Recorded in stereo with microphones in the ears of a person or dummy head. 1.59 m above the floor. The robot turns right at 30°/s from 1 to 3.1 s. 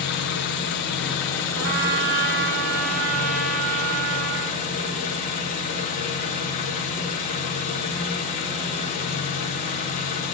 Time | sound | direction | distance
0.0 | an engine running | 70° left | 1.1 m
1.6 | a trumpet | 130° right | 0.9 m